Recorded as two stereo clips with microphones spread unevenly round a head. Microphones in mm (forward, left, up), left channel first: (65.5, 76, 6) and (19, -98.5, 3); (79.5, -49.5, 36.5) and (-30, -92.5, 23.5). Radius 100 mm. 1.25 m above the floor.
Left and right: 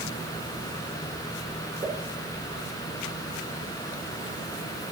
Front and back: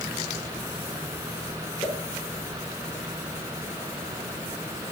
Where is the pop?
35° right, 7 m.